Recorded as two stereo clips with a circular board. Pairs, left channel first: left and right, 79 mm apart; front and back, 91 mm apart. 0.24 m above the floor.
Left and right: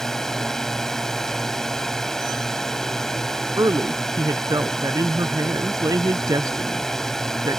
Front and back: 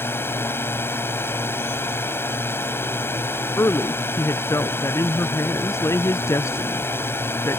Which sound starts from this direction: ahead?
A drone, at 0.0 s.